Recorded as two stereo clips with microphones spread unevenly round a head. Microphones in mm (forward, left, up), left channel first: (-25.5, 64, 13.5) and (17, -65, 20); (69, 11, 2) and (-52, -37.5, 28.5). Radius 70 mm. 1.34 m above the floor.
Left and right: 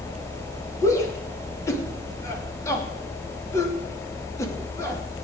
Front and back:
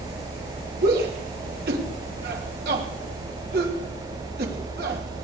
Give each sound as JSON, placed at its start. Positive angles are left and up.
{"t": 0.8, "sound": "a shout", "azimuth_deg": 175, "distance_m": 3.0}